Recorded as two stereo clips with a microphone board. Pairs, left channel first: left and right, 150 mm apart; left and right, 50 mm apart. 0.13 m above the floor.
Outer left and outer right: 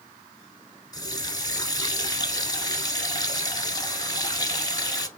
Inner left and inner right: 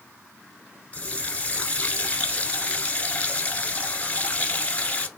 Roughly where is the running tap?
Left.